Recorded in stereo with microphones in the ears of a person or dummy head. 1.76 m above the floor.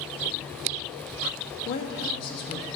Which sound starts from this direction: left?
A woman speaking, at 1.6 s.